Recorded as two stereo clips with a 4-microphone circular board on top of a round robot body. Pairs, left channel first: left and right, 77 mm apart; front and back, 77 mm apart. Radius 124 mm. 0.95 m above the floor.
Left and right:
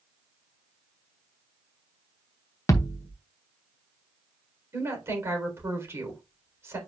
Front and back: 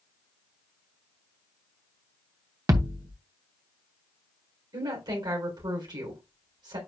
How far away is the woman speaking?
About 3.5 m.